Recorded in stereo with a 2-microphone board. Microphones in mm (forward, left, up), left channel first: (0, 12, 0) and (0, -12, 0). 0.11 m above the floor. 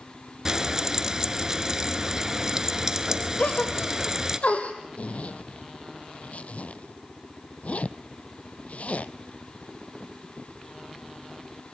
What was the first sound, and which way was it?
Frying, 25° right (ahead or behind).